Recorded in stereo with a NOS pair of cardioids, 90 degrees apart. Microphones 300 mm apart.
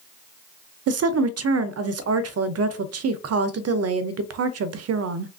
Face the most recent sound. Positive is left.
turn(degrees=-55)